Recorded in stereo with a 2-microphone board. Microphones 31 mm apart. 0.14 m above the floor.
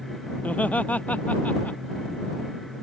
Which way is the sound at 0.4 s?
60° left (ahead or behind).